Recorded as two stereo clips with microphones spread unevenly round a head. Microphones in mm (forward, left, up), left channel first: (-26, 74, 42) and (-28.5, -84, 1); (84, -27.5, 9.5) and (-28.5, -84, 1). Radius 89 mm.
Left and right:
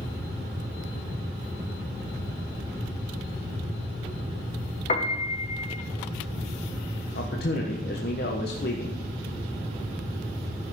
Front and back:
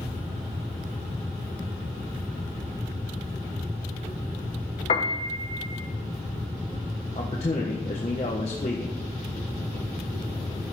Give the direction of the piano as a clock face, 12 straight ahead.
10 o'clock.